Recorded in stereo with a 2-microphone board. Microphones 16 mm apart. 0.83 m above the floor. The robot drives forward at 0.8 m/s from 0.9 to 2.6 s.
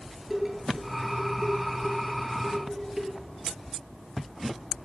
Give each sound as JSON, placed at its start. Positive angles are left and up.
{"t": 0.3, "sound": "dishes clattering", "side_deg": -20, "distance_m": 9.5}